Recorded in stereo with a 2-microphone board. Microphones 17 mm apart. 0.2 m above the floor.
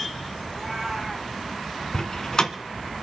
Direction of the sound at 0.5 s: 10° right (ahead or behind).